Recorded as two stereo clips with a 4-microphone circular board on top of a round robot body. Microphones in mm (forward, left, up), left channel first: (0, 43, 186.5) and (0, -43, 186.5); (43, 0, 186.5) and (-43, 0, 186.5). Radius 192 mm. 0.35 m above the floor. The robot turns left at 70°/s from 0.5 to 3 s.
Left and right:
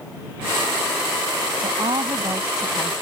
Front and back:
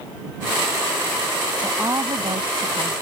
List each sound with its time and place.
1.6 s a woman speaking: 105° right; by 2.9 s 165° left